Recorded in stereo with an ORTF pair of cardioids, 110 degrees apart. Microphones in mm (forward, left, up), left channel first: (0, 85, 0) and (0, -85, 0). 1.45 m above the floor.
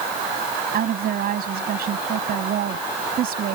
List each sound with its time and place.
0.7 s a woman speaking: 60° right